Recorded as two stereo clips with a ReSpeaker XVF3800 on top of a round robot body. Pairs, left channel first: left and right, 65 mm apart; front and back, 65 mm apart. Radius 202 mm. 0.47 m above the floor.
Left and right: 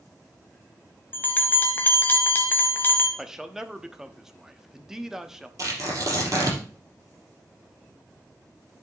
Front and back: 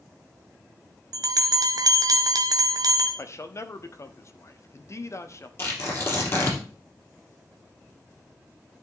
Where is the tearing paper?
50° right, 4 m.